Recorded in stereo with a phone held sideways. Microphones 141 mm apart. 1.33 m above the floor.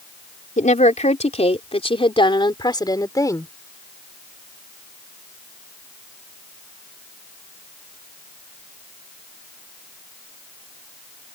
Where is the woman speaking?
60° left (ahead or behind); by 3.5 s 20° left (ahead or behind).